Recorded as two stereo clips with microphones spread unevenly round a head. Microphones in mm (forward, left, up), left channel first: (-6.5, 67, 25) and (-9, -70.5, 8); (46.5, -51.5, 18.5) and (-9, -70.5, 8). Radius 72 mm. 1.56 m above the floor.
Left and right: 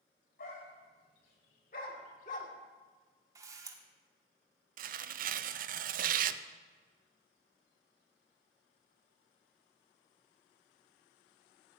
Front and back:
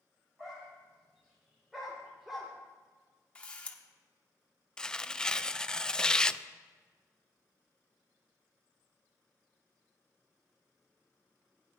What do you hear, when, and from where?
0.4 s a dog barking: 105° left, 3.5 m
3.4 s a camera shutter: 25° right, 1.3 m
4.8 s tearing paper: 60° right, 0.5 m